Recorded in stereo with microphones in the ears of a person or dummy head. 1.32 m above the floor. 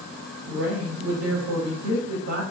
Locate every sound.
0.5 s a woman speaking: 70° right (ahead or behind), 2 m